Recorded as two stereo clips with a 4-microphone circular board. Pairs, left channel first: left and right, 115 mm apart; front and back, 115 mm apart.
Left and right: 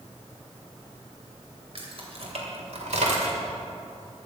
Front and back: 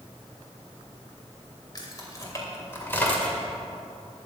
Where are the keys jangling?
55° right, 3 m; by 3.4 s 80° right, 2 m.